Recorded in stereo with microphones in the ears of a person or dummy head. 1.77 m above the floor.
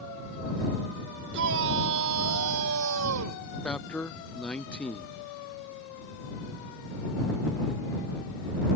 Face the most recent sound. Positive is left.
turn(degrees=5)  # may be behind; listen again after turning